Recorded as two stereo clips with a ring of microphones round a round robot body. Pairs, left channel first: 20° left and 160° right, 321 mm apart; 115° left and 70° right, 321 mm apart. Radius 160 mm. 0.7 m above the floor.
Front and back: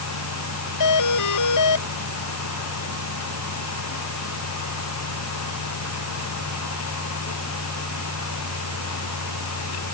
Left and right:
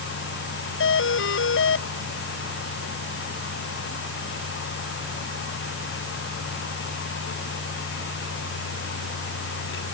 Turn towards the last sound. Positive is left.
turn(degrees=60)